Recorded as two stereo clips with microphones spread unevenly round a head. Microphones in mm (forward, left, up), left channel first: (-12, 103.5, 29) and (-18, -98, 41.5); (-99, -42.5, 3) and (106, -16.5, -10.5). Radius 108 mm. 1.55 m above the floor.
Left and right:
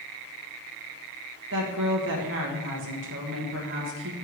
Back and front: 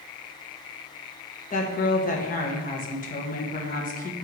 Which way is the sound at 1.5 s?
120° right.